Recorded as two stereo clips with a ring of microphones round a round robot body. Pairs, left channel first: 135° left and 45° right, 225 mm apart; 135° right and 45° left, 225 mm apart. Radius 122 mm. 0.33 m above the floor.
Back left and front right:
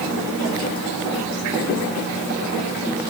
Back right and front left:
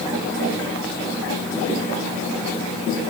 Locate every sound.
Only background noise.